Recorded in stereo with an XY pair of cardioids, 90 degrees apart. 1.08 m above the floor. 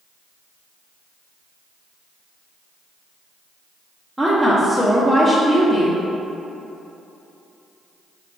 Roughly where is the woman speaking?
Ahead.